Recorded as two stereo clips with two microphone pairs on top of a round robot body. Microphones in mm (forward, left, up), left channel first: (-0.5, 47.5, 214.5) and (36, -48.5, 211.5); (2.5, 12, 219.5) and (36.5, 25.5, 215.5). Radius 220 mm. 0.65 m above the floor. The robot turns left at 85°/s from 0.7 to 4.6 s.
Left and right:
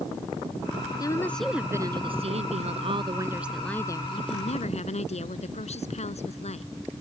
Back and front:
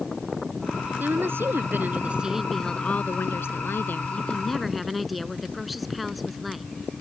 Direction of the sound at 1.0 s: 55° left.